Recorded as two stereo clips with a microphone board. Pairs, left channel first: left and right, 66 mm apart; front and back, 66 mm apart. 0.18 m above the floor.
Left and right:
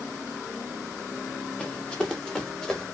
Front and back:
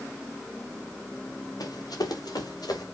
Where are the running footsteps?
15° left, 3 m; by 2.8 s 10° left, 4 m.